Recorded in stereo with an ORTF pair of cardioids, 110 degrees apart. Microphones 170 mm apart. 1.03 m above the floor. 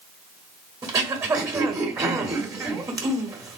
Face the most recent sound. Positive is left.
turn(degrees=-20)